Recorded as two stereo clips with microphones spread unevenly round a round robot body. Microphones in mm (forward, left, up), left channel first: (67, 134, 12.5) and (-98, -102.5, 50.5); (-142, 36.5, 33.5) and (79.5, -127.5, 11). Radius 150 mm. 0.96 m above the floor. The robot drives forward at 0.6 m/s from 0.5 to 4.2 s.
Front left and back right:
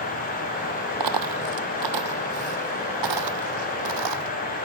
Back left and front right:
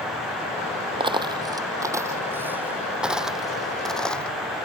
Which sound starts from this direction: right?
A dropped coin, at 1.0 s.